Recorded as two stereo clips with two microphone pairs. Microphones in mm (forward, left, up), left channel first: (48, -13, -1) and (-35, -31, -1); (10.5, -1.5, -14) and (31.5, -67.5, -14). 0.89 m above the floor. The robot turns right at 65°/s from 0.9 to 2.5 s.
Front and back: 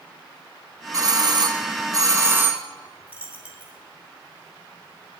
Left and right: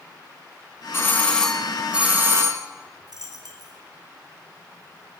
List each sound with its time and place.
0.9 s a doorbell: 160° left, 0.9 m; by 2.6 s 100° right, 0.9 m
3.1 s a dropped coin: 95° right, 2 m